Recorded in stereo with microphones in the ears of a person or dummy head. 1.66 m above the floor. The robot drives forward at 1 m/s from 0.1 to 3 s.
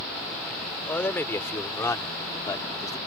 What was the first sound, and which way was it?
A man speaking, 15° left (ahead or behind).